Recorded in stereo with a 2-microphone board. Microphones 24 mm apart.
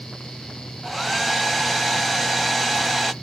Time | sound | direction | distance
0.8 | a hair dryer | centre (ahead or behind) | 0.6 m